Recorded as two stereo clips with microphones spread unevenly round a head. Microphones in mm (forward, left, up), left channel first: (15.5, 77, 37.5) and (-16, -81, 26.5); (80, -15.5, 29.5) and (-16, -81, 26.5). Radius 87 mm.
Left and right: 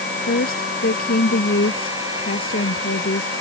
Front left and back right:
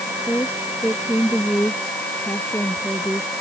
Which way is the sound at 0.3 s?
115° left.